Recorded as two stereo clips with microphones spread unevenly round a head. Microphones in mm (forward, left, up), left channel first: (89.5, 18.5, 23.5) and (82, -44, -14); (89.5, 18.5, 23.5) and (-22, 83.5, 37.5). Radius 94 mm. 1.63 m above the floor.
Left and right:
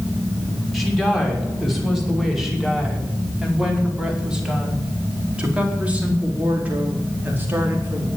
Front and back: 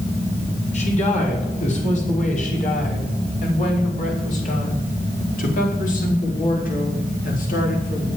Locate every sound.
0.7 s a woman speaking: 5° right, 6.5 m; by 8.1 s 40° right, 4.5 m